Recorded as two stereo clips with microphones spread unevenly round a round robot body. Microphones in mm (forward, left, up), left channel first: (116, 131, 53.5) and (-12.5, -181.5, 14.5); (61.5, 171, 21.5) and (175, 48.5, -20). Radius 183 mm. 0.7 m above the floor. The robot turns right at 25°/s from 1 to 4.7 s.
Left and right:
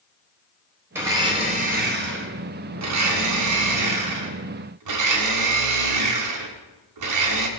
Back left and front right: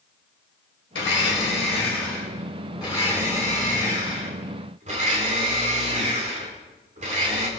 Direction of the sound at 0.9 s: 170° left.